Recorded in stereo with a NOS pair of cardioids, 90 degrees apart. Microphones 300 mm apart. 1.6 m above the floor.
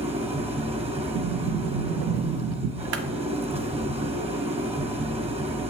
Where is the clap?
60° right, 0.9 m.